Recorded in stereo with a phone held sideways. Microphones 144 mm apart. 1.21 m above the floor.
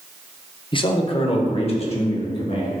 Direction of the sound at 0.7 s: 35° left (ahead or behind).